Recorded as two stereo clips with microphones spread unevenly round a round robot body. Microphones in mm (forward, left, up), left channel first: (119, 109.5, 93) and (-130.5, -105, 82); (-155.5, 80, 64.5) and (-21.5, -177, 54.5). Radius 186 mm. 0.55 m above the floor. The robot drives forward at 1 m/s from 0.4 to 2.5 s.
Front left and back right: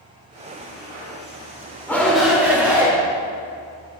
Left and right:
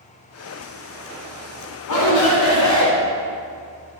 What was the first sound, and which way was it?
A shout, 125° left.